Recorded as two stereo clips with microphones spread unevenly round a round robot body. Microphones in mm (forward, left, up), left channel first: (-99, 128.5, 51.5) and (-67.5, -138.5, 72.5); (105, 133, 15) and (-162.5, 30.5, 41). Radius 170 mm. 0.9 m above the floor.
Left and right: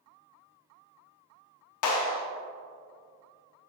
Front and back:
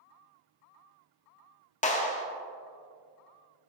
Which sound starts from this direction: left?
A clap, at 1.8 s.